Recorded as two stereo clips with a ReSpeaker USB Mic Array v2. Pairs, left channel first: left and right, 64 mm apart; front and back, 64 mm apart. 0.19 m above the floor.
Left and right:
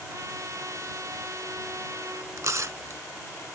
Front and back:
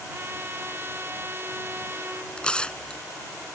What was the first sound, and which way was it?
A trumpet, 125° right.